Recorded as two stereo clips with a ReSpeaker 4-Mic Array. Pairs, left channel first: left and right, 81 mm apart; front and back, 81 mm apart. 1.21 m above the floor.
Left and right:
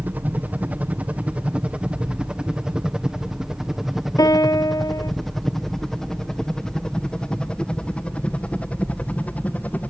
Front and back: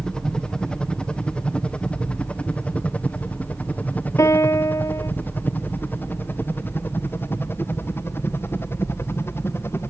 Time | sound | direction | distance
0.0 | a helicopter | 65° right | ?
4.2 | a piano | 50° left | ?